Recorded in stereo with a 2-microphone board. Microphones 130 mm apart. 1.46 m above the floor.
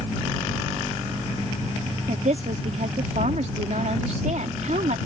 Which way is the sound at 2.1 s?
70° right (ahead or behind).